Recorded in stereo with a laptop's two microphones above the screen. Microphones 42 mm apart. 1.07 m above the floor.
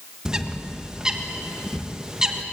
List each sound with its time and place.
0.2 s a bird: 15° right (ahead or behind), 1.3 m